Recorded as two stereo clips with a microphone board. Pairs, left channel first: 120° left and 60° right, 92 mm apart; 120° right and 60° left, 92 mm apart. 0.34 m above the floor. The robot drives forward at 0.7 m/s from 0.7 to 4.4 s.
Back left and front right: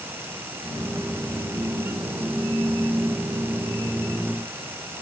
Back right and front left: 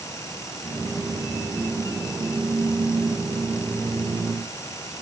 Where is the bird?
I don't hear a bird.